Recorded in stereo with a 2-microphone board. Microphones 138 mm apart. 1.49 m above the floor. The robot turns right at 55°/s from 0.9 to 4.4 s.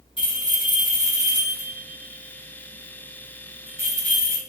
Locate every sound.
0.2 s a bell: 40° left (ahead or behind), 4.5 m; by 4.4 s 50° right (ahead or behind), 4.5 m